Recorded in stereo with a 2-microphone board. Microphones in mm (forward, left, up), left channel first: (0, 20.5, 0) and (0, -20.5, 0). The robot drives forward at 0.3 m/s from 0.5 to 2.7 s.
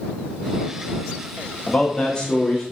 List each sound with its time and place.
1.7 s a man speaking: 20° left (ahead or behind), 1.0 m; by 2.6 s 15° left (ahead or behind), 1.3 m